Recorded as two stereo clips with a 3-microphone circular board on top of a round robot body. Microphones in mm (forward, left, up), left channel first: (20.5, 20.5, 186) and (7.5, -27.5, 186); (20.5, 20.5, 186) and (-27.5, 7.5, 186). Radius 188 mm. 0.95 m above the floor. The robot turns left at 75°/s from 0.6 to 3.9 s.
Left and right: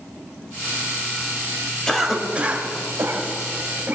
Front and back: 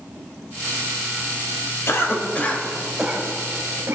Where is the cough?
Straight ahead, 3 m; by 4.0 s 150° right, 3 m.